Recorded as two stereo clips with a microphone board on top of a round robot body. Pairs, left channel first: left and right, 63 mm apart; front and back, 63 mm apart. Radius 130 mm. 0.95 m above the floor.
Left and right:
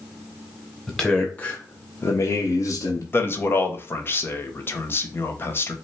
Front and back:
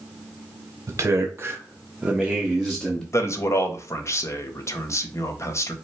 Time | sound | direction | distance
0.9 | a man speaking | 170° left | 1.1 m
3.1 | a man speaking | 35° left | 1.2 m